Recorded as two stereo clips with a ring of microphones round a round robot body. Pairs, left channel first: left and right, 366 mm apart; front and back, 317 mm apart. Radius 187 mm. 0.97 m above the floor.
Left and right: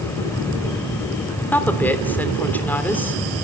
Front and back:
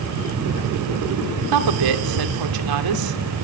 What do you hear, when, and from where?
1.5 s a woman speaking: 175° left, 3 m